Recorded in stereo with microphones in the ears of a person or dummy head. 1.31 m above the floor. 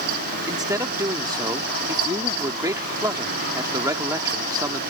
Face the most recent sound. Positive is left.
turn(degrees=-10)  # may be behind; listen again after turning